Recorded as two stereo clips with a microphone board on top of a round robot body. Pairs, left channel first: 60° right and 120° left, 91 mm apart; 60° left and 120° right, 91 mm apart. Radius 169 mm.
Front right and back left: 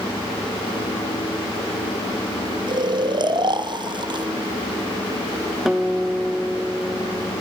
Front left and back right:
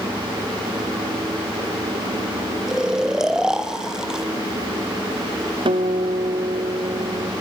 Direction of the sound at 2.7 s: 155° left.